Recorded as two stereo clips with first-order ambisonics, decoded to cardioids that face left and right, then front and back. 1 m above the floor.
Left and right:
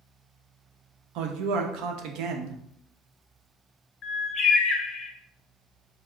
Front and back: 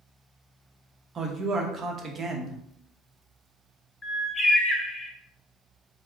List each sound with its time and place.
1.1 s a man speaking: 115° right, 0.8 m
4.0 s a bird: 65° left, 0.7 m